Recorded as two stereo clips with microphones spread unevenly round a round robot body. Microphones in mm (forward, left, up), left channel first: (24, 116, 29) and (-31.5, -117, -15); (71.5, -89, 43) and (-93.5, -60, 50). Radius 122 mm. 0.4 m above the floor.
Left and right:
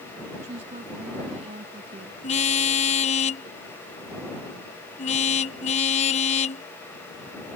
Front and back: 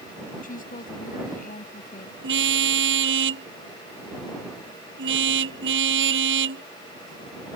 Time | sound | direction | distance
0.4 | a woman speaking | 40° right | ?
2.2 | a car horn | 140° left | ?